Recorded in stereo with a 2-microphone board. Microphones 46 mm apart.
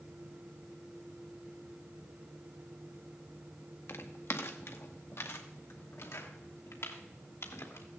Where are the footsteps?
60° left (ahead or behind), 1.6 m; by 7.9 s 70° left (ahead or behind), 3.5 m.